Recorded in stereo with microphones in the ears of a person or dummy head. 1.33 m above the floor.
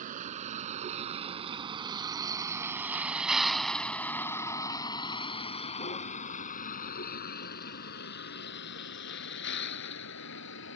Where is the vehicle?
40° right (ahead or behind); by 10.8 s 75° left (ahead or behind).